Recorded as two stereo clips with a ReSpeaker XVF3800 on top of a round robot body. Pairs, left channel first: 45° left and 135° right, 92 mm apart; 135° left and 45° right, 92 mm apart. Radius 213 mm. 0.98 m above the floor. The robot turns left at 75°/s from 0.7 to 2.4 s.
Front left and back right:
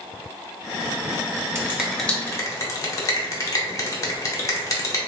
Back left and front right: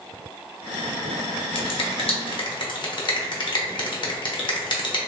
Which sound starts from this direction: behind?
A finger snap, at 1.6 s.